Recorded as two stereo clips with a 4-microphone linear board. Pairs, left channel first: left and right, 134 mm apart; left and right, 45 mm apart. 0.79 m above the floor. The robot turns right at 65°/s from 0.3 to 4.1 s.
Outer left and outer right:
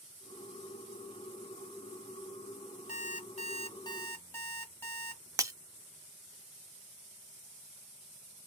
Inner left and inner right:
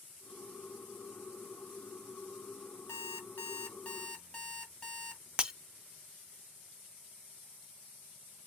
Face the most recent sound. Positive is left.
turn(degrees=-25)  # may be behind; listen again after turning